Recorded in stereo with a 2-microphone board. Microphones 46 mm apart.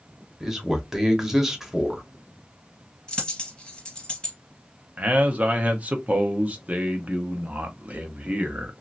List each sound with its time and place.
0.4 s a man speaking: 10° right (ahead or behind), 1.0 m
3.1 s a dropped coin: 20° left (ahead or behind), 2 m
5.0 s a man speaking: 35° right (ahead or behind), 0.8 m